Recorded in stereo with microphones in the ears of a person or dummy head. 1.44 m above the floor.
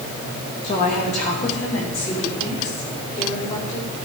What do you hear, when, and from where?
0.6 s a woman speaking: 45° left (ahead or behind), 2 m; by 3.9 s 50° left (ahead or behind), 4.5 m